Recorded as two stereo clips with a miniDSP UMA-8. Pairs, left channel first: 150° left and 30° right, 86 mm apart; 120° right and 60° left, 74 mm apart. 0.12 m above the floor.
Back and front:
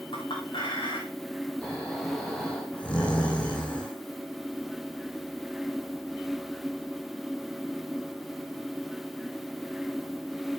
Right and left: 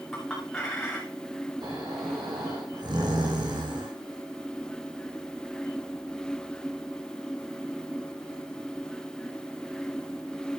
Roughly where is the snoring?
Left.